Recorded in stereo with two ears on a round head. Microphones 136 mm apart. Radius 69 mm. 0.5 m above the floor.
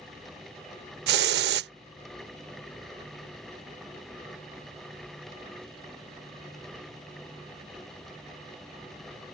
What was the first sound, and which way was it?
A hiss, 75° right (ahead or behind).